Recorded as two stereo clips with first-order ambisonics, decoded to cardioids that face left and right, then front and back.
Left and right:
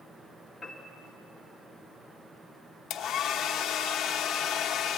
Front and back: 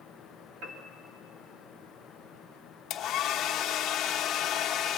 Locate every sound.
0.6 s a piano: 170° left, 2.5 m
2.9 s a hair dryer: 50° left, 1.0 m